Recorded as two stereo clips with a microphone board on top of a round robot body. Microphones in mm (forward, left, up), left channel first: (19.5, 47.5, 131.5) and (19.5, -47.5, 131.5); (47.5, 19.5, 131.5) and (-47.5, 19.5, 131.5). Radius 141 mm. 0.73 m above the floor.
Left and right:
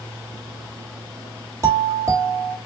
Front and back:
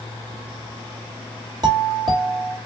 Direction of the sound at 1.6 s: 145° right.